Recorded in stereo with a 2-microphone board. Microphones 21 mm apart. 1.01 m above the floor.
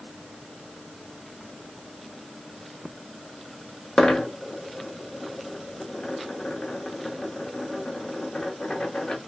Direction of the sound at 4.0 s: 50° left (ahead or behind).